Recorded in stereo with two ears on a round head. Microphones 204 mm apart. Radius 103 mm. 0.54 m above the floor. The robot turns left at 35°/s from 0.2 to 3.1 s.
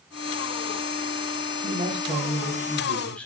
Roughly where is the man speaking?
Behind right.